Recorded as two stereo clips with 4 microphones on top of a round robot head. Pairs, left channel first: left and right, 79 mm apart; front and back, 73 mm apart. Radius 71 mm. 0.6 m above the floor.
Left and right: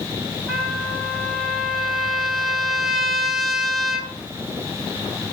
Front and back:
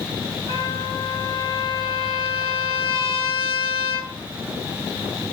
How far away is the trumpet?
About 3.5 m.